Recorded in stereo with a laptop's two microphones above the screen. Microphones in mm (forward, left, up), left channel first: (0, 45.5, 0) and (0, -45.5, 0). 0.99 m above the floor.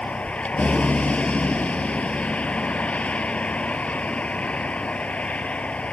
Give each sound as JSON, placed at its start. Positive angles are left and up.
{"t": 0.0, "sound": "a vehicle", "side_deg": 15}